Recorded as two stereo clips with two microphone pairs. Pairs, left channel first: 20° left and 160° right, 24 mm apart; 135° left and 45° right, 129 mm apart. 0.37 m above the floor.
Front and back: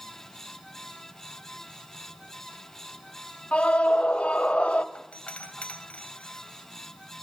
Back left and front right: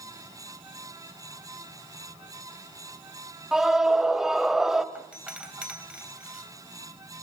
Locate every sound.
3.5 s a scream: 40° left, 1.6 m
5.0 s a doorbell: 35° left, 3 m